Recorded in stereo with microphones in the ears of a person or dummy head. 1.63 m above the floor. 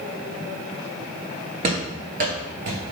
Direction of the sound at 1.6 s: 30° right (ahead or behind).